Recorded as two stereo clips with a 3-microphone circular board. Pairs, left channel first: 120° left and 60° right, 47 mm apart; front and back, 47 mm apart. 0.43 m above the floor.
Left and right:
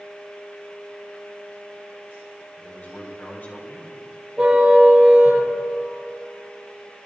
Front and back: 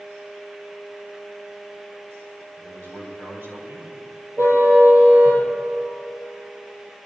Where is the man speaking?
160° left, 3.5 m.